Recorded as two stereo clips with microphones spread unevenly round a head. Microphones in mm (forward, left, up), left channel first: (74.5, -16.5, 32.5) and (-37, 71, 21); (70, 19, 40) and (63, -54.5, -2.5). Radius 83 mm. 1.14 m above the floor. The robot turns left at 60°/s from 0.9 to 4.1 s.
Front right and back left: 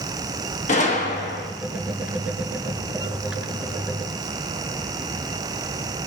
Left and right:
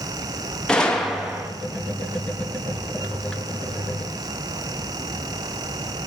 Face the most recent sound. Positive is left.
turn(degrees=170)